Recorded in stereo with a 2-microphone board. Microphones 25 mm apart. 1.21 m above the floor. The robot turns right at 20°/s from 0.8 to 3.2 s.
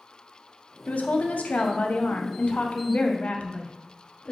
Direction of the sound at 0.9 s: 75° left.